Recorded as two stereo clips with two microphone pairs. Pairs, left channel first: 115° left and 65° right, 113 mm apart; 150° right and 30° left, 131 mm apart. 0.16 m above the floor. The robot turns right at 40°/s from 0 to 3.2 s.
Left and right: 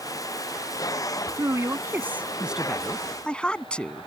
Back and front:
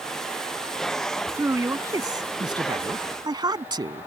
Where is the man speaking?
30° right; by 4.1 s 45° left.